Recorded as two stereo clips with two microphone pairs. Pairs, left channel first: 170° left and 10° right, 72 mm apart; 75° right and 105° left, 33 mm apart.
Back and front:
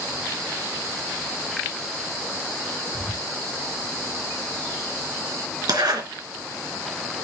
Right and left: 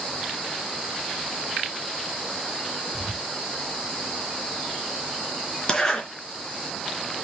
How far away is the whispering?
About 4.5 m.